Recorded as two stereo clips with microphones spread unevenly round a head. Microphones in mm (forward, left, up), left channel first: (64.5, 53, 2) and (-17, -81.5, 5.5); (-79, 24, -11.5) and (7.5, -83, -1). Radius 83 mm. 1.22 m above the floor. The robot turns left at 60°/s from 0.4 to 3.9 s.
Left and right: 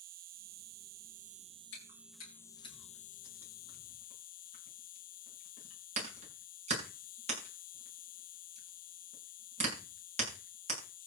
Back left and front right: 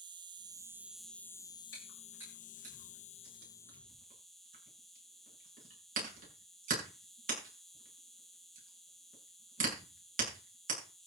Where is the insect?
105° right, 0.7 m; by 11.1 s 45° left, 0.7 m.